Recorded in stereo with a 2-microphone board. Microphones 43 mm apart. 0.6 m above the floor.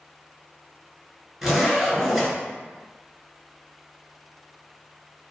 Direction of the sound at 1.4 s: 10° right (ahead or behind).